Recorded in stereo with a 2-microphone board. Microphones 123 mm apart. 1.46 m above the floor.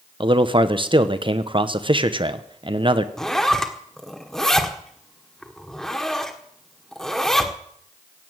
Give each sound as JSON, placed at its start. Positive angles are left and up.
{"t": 0.2, "sound": "a man speaking", "side_deg": -40, "distance_m": 1.1}
{"t": 3.2, "sound": "a zipper", "side_deg": 5, "distance_m": 1.6}